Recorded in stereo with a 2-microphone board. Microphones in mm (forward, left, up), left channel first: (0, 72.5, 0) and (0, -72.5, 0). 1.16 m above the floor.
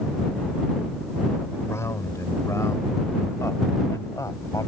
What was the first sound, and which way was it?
A man speaking, 20° left (ahead or behind).